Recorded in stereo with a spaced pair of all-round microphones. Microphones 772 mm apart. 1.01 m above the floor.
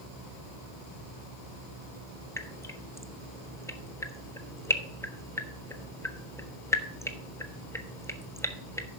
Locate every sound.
2.4 s dripping: 5° left (ahead or behind), 0.6 m